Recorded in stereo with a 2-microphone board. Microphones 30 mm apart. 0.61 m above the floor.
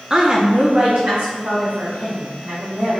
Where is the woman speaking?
20° right (ahead or behind), 0.5 m; by 3.0 s 70° right (ahead or behind), 2.5 m.